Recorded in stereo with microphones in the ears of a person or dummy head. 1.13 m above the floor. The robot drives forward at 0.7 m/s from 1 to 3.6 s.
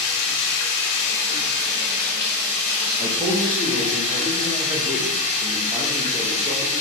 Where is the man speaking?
25° right (ahead or behind), 0.9 m; by 6.8 s 15° right (ahead or behind), 1.3 m.